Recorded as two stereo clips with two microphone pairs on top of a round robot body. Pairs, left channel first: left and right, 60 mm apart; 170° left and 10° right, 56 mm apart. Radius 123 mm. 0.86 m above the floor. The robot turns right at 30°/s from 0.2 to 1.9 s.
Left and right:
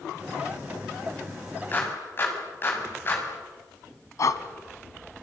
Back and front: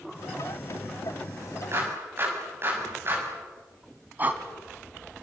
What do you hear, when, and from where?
1.7 s a clap: 35° left, 6.5 m; by 3.2 s 40° left, 6.5 m
4.2 s breathing: 50° left, 1.8 m